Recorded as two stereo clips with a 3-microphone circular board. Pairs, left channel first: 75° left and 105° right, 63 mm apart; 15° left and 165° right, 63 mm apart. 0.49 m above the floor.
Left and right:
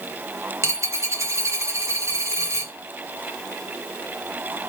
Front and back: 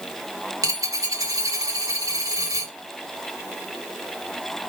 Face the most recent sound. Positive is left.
turn(degrees=-145)